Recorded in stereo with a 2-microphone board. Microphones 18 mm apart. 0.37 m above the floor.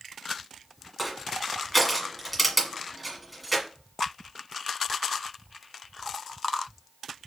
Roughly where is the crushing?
Centre.